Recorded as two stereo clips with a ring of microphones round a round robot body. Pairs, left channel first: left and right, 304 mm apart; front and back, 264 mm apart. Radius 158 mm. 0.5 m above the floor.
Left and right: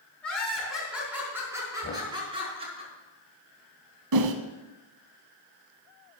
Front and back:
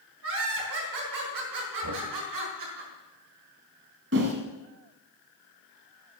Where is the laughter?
175° left, 5 m; by 2.8 s 160° right, 5 m.